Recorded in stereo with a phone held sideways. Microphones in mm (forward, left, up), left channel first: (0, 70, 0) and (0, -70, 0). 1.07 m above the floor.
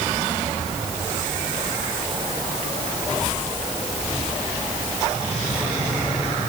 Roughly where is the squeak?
I don't hear a squeak.